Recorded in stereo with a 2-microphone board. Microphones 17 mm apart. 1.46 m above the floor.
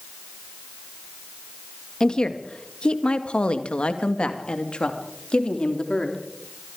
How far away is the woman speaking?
About 2 m.